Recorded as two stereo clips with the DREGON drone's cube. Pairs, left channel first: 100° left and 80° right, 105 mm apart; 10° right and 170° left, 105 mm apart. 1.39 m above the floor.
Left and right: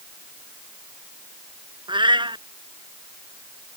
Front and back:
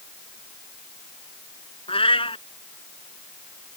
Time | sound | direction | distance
1.9 | a cat meowing | 40° right | ?